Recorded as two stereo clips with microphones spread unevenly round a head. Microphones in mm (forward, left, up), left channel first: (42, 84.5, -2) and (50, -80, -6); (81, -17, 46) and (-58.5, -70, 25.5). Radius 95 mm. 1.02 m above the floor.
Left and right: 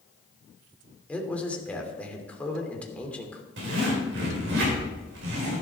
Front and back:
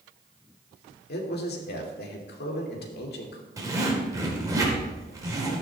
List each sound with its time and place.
1.1 s a man speaking: 10° left, 2.5 m
3.6 s a zipper: 90° right, 4.5 m